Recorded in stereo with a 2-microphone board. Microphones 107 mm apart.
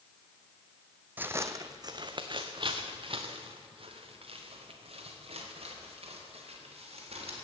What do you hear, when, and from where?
1.2 s footsteps: 15° right (ahead or behind), 0.6 m; by 7.4 s 65° right (ahead or behind), 4 m